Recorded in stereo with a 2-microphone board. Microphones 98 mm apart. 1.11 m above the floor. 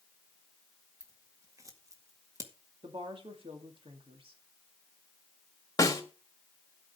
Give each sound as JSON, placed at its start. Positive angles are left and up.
{"t": 1.0, "sound": "scissors", "side_deg": -35, "distance_m": 1.9}
{"t": 2.8, "sound": "a woman speaking", "side_deg": -65, "distance_m": 2.0}
{"t": 5.8, "sound": "a snare drum", "side_deg": 35, "distance_m": 2.5}